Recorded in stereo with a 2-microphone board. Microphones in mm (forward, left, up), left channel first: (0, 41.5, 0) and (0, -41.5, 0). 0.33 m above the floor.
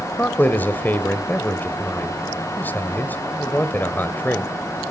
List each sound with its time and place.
0.2 s a man speaking: 25° left (ahead or behind), 1.2 m